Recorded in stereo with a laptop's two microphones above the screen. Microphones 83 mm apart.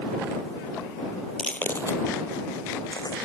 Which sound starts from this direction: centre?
Footsteps, at 1.4 s.